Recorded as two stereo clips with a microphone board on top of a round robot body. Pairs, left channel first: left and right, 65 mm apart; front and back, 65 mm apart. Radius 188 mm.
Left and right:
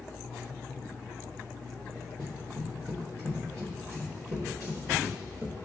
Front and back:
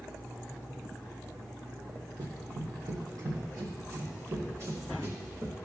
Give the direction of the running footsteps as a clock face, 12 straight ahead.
5 o'clock.